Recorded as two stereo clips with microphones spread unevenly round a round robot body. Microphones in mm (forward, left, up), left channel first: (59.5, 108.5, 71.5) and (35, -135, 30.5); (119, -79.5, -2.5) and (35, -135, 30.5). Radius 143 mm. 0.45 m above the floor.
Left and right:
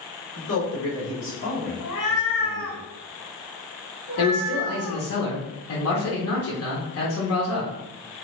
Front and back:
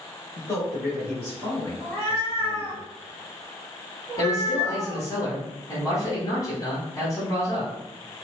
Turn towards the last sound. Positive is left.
turn(degrees=70)